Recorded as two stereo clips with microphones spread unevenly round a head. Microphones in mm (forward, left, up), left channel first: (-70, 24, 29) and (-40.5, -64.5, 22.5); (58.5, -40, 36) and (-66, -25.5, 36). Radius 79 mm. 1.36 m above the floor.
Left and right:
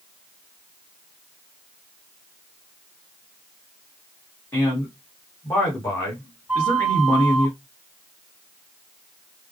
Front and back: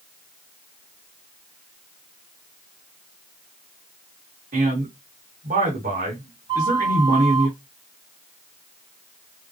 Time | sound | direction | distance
4.5 | a man speaking | 170° left | 1.9 m
6.5 | a flute | 150° right | 1.5 m